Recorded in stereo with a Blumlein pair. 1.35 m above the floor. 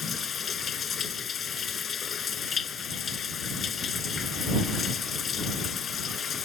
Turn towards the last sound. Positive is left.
turn(degrees=20)